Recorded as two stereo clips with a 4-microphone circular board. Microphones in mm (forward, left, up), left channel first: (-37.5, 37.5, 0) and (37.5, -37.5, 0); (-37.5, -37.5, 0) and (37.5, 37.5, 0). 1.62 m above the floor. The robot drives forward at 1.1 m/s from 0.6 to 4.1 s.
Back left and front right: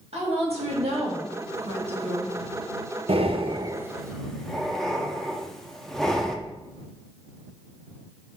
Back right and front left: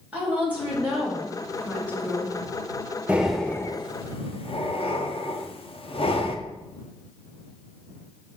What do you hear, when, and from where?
0.1 s a woman speaking: 30° right, 2.5 m; by 2.4 s 75° right, 1.4 m
3.1 s breathing: 30° right, 0.8 m; by 6.4 s 140° right, 0.7 m